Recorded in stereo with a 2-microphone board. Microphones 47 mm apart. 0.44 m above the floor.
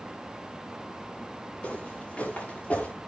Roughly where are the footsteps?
Left.